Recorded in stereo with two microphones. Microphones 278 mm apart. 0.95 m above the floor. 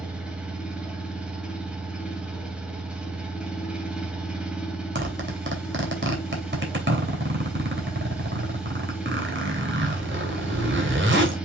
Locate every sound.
0.0 s an engine running: 5° right (ahead or behind), 2 m
5.0 s a zipper: 45° right (ahead or behind), 2.5 m